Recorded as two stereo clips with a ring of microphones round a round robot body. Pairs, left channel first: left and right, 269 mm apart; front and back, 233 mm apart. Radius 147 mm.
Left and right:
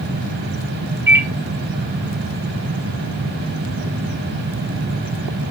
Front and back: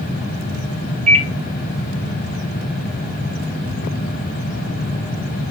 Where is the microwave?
165° right, 0.9 m.